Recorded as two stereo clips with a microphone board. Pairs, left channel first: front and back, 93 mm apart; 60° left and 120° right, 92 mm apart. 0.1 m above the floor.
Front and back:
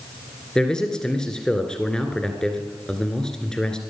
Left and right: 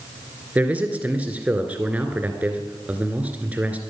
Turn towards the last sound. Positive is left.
turn(degrees=-70)